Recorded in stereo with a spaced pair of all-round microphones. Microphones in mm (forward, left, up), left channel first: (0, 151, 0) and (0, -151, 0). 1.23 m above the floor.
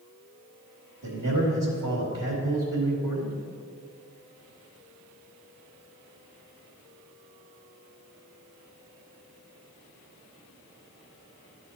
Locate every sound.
1.0 s a man speaking: 85° right, 2.5 m